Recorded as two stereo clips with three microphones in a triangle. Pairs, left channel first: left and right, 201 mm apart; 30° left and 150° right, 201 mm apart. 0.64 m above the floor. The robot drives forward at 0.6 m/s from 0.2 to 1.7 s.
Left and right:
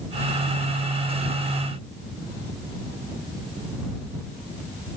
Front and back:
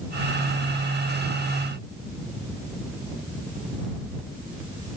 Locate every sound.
Only background noise.